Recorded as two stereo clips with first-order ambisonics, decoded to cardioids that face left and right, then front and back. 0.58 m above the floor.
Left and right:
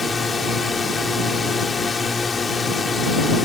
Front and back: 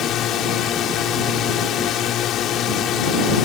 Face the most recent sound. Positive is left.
turn(degrees=25)